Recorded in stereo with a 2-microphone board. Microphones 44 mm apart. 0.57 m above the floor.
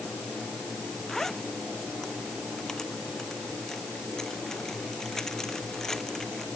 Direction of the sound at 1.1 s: 10° left (ahead or behind).